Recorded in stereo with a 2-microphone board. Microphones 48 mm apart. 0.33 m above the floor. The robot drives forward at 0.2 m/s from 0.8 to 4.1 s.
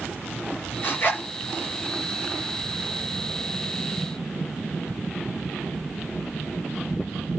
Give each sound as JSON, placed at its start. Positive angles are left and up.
{"t": 0.8, "sound": "a zipper", "side_deg": 40, "distance_m": 5.0}